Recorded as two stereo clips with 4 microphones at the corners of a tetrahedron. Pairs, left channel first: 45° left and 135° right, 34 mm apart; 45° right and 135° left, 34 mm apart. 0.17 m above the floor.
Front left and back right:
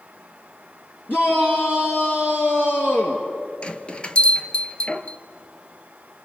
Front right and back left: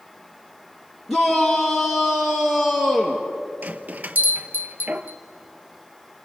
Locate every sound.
1.1 s a shout: 45° left, 3.5 m; by 3.2 s 60° left, 2.5 m
3.6 s a bell: 105° left, 0.8 m